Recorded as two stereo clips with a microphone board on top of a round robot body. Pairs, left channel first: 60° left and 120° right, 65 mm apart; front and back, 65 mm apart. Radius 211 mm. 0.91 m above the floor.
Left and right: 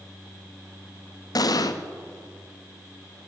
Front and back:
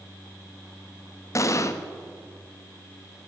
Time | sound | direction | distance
1.4 | an explosion | 40° left | 1.5 m